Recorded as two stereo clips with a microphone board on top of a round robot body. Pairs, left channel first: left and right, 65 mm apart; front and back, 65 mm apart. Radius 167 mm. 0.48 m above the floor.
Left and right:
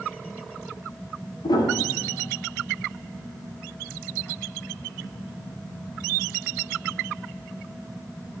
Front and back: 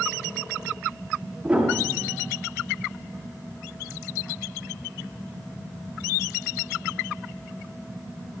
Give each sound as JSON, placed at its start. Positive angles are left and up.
{"t": 1.4, "sound": "a piano", "azimuth_deg": 100, "distance_m": 6.0}